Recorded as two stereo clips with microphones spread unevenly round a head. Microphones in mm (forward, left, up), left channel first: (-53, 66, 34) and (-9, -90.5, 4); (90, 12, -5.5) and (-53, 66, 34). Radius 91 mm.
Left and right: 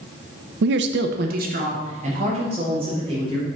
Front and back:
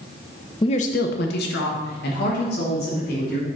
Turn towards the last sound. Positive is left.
turn(degrees=-10)